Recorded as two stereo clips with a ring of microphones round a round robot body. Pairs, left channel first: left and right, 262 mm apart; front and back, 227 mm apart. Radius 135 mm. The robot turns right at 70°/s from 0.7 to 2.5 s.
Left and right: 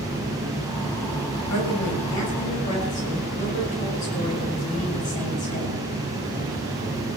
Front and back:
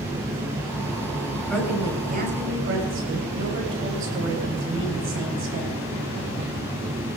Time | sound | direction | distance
1.5 | a woman speaking | 80° left | 7 m